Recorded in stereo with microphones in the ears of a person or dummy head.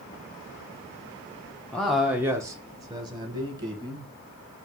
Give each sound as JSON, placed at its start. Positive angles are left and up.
{"t": 1.7, "sound": "a man speaking", "side_deg": 5, "distance_m": 0.5}